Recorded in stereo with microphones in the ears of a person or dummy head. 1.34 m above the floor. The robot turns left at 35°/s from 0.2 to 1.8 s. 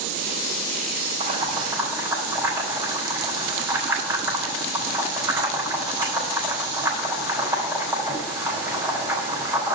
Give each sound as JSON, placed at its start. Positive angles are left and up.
{"t": 1.2, "sound": "boiling", "side_deg": -35, "distance_m": 5.0}